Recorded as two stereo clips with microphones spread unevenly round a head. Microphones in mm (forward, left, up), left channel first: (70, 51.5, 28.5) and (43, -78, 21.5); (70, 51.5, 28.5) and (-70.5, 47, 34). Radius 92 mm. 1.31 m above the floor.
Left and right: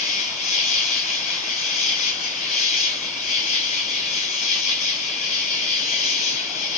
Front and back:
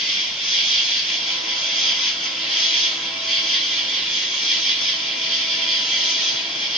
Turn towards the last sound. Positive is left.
turn(degrees=100)